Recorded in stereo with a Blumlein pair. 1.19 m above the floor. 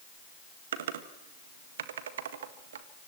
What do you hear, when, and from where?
0.7 s typing on a keyboard: 60° right, 1.7 m